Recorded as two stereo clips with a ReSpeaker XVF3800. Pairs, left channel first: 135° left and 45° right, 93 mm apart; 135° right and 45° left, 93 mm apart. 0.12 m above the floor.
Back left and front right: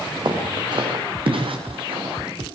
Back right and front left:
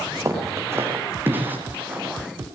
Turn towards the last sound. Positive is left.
turn(degrees=-30)